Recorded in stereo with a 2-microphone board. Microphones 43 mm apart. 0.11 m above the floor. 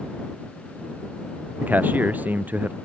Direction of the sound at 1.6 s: 45° right (ahead or behind).